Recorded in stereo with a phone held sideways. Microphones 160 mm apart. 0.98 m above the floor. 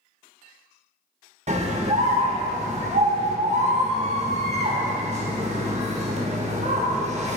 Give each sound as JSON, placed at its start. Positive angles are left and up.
{"t": 1.5, "sound": "a scream", "side_deg": -45, "distance_m": 1.5}